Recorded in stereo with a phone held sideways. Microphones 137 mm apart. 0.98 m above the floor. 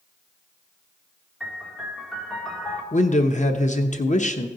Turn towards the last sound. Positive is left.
turn(degrees=60)  # may be behind; listen again after turning